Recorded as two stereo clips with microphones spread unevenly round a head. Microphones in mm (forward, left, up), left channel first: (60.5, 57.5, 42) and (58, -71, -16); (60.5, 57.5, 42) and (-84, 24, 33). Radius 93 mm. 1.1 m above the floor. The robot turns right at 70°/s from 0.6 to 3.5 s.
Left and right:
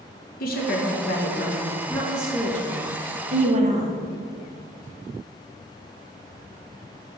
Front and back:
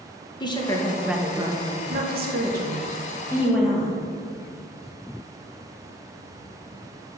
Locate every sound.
0.4 s a woman speaking: 75° left, 1.2 m; by 4.0 s 80° right, 1.2 m